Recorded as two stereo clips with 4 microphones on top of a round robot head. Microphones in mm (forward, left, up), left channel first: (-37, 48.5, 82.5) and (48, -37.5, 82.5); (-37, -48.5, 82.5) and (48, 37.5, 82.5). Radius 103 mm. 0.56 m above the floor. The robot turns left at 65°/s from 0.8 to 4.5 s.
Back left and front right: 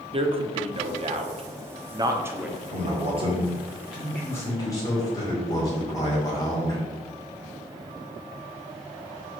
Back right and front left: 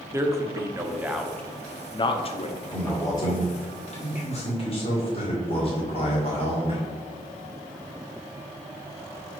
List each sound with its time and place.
0.1 s a man speaking: 15° right, 1.1 m; by 2.6 s 130° right, 1.1 m
2.7 s a man speaking: 50° right, 2.5 m; by 6.8 s 165° right, 2.5 m